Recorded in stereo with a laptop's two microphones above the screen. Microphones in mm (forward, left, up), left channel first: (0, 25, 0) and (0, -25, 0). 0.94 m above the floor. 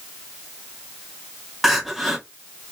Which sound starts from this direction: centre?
Crying, at 1.6 s.